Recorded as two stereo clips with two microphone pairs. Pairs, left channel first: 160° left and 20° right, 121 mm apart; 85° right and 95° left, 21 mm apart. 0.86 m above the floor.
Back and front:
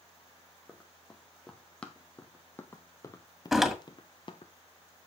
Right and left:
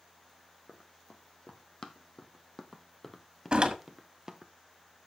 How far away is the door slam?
About 1.5 m.